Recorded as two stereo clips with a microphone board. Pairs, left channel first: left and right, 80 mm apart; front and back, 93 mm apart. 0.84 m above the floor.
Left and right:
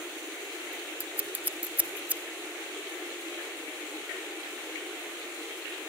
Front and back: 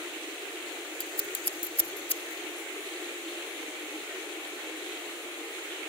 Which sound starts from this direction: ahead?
Scissors, at 1.0 s.